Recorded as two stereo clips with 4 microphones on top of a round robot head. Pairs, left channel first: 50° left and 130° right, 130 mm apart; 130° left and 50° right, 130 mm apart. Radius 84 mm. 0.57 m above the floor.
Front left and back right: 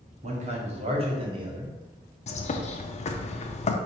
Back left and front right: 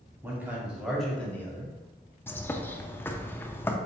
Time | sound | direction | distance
0.2 | a man speaking | 120° right | 1.6 m
2.3 | a bird | 55° left | 0.6 m